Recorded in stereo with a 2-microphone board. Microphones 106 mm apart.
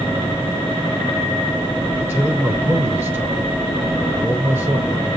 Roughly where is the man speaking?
Right.